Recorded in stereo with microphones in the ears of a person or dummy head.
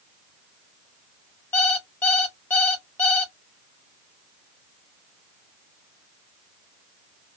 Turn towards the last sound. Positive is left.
turn(degrees=10)  # may be behind; listen again after turning